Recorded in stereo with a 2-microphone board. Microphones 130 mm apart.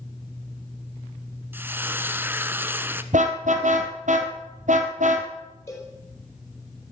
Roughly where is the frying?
Centre.